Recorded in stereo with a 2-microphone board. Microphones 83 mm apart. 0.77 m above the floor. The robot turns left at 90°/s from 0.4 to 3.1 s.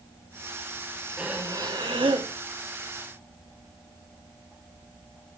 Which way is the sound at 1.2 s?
10° right.